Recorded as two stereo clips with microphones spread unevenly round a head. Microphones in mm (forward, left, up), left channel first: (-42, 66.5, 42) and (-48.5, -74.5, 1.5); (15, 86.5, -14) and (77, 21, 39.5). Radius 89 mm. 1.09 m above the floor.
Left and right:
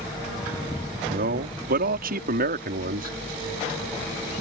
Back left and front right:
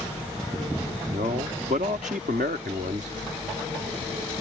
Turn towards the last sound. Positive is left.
turn(degrees=-95)